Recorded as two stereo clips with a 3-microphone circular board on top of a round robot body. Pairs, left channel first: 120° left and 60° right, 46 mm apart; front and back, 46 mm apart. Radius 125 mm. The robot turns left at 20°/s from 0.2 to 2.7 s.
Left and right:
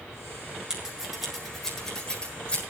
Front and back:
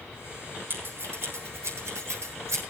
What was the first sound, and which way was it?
Scissors, 135° right.